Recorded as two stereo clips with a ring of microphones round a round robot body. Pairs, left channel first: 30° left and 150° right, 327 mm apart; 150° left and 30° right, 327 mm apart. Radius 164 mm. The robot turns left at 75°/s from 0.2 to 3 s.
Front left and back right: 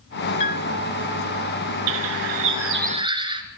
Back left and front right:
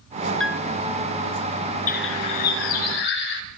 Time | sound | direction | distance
0.4 | a piano | 65° left | 1.1 m
1.9 | a bird | 140° right | 3 m